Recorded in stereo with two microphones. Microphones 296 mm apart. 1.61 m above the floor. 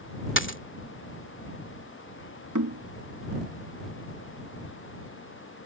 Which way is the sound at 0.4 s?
40° left (ahead or behind).